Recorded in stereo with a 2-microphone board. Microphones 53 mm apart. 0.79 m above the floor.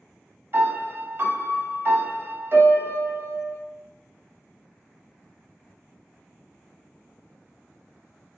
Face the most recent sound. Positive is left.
turn(degrees=-45)  # may be behind; listen again after turning